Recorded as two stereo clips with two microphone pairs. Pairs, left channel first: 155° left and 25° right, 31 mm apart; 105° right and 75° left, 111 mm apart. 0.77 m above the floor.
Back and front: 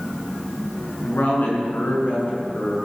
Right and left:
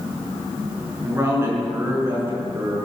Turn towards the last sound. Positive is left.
turn(degrees=140)